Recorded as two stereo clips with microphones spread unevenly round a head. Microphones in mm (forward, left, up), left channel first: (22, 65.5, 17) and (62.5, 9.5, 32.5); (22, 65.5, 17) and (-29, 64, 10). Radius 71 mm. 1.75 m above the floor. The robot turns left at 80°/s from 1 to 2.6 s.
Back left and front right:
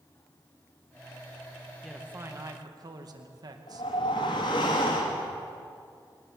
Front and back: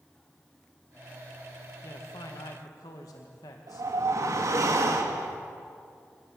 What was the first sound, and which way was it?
A man speaking, 30° left.